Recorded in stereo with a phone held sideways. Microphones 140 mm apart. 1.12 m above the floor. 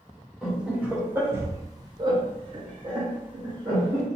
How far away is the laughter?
About 1.2 m.